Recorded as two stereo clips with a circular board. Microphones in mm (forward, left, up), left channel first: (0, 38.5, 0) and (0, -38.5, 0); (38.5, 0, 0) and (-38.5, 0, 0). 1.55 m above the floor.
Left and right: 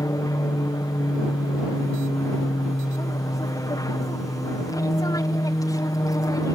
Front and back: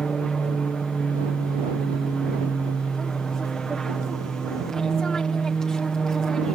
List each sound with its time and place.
0.0 s an aircraft: 80° left